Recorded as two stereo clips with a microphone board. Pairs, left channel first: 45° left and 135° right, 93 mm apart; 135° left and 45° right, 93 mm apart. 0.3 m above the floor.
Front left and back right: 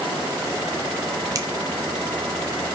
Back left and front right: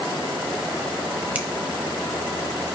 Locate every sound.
1.4 s a finger snap: 110° right, 0.9 m